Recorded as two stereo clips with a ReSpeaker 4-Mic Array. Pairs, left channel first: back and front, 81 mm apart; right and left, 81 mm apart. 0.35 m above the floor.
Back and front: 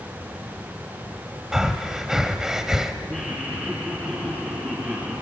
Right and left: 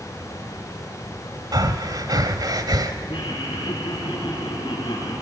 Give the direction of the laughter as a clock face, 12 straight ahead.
2 o'clock.